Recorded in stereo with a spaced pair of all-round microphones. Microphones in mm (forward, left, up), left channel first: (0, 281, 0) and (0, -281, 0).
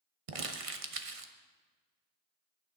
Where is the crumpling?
70° right (ahead or behind), 1.0 m.